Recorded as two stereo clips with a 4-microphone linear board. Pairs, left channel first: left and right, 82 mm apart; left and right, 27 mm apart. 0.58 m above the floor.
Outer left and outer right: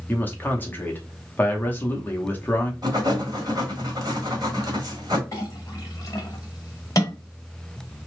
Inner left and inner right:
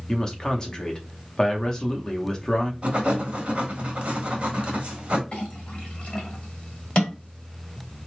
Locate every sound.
0.1 s a man speaking: 25° left (ahead or behind), 0.7 m
2.8 s writing: 50° right (ahead or behind), 1.2 m
5.3 s a clink: 40° left (ahead or behind), 1.4 m